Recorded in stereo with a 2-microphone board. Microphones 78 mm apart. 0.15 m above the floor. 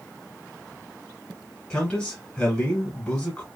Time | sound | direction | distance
1.7 | a man speaking | 15° left (ahead or behind) | 1.4 m